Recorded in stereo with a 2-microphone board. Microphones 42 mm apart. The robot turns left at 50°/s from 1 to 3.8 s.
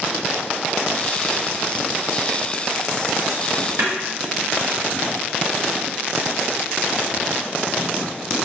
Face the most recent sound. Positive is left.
turn(degrees=-80)